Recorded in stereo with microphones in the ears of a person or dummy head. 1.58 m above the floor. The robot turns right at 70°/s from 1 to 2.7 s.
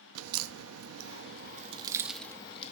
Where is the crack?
75° right (ahead or behind), 0.6 m; by 2.7 s 40° left (ahead or behind), 0.6 m.